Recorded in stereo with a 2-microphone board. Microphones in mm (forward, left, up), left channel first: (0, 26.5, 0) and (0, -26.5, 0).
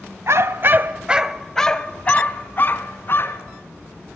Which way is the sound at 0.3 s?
60° right (ahead or behind).